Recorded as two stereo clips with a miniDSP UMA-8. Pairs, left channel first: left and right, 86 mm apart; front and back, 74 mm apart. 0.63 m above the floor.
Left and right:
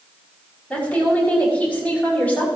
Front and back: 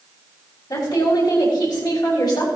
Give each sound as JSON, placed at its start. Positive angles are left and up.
{"t": 0.7, "sound": "a woman speaking", "azimuth_deg": 20, "distance_m": 5.5}